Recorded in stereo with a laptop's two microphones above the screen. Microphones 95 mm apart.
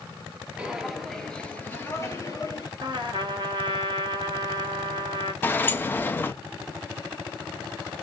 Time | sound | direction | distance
0.6 | footsteps | 15° right (ahead or behind) | 1.0 m
2.8 | a trumpet | 55° right (ahead or behind) | 1.6 m
5.4 | a sliding door | 20° left (ahead or behind) | 0.6 m